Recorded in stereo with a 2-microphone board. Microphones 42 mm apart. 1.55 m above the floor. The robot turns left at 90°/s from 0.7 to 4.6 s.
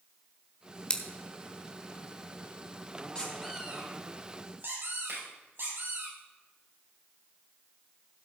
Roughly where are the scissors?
Left.